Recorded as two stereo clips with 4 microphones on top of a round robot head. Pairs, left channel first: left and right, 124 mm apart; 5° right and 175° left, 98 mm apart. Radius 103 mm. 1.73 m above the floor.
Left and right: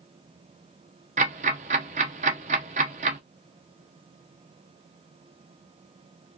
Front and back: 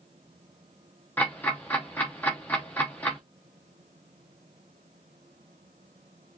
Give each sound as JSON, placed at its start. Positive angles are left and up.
{"t": 1.2, "sound": "ticking", "azimuth_deg": -85, "distance_m": 0.5}